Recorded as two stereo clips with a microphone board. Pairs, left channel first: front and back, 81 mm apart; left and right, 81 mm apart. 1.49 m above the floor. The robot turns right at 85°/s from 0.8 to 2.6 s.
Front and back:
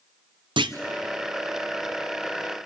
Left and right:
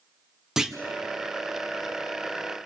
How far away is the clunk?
About 0.9 m.